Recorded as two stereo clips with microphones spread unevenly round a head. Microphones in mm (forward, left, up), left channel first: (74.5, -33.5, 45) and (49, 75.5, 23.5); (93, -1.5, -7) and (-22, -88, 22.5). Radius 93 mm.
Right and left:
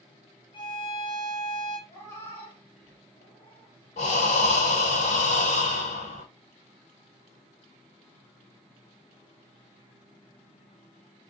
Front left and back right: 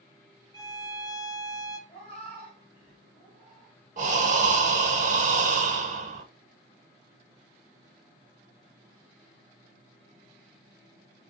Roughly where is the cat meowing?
Ahead.